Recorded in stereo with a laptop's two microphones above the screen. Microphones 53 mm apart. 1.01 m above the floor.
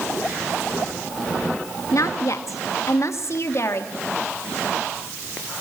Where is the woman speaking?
70° left (ahead or behind), 1.7 m; by 3.9 s 55° left (ahead or behind), 2.5 m.